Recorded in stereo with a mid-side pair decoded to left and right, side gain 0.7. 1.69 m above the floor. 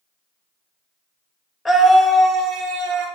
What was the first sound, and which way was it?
A scream, 10° left.